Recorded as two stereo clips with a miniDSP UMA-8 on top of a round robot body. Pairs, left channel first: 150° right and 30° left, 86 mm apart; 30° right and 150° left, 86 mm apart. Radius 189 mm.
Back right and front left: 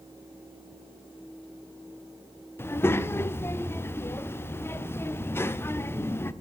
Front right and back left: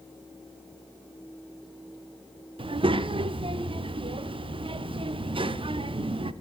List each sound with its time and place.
2.6 s a child speaking: 145° left, 0.9 m